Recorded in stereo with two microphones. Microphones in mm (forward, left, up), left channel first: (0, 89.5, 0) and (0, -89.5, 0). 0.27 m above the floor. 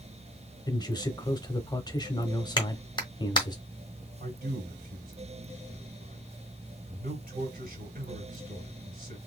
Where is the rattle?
I don't hear a rattle.